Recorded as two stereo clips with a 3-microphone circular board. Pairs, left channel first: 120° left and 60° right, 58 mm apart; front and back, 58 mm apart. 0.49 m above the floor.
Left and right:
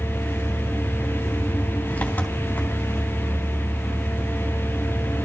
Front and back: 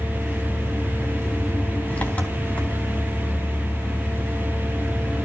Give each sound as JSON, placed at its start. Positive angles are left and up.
{"t": 0.0, "sound": "an engine running", "azimuth_deg": 60, "distance_m": 3.0}